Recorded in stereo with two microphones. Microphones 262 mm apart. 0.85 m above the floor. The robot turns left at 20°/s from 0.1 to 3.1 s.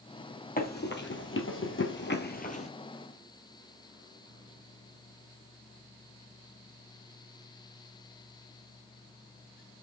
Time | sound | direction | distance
0.6 | running footsteps | 35° left (ahead or behind) | 1.5 m